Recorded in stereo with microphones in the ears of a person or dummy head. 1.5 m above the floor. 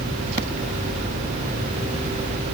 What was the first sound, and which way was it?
Only background noise.